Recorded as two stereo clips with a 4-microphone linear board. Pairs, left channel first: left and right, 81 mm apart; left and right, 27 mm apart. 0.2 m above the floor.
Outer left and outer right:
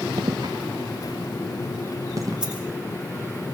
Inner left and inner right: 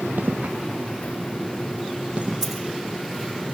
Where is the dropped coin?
15° right (ahead or behind), 8 m.